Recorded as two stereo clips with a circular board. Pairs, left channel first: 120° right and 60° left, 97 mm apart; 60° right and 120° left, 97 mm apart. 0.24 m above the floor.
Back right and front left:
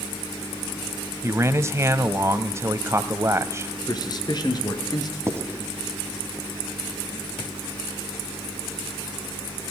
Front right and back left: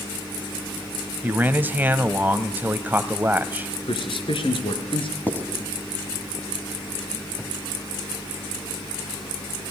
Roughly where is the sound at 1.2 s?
Left.